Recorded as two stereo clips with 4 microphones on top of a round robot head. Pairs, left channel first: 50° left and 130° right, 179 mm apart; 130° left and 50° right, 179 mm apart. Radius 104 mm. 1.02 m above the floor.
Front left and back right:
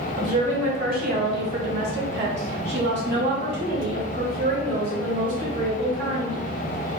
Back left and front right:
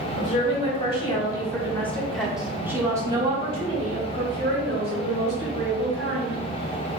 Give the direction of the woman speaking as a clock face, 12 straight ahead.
6 o'clock.